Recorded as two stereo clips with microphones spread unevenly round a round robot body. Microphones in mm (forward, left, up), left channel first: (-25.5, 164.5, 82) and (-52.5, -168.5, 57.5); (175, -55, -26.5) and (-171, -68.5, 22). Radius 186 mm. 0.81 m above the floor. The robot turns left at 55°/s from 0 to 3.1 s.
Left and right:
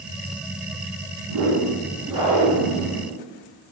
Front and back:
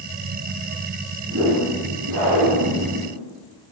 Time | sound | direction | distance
1.2 | a whoosh | 125° right | 1.5 m